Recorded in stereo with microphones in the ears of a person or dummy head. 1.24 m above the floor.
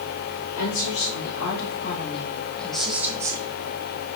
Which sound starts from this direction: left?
A woman speaking, at 0.6 s.